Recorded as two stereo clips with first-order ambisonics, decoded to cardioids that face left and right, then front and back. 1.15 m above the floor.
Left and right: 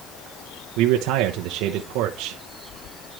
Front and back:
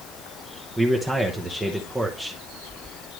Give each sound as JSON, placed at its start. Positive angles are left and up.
{"t": 0.8, "sound": "a man speaking", "azimuth_deg": -100, "distance_m": 0.9}